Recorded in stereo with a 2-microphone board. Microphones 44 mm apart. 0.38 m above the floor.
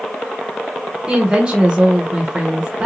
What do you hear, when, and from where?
1.1 s a woman speaking: 25° right (ahead or behind), 0.8 m